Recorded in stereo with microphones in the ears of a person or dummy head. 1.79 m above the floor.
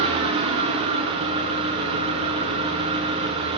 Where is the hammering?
No hammering in this recording.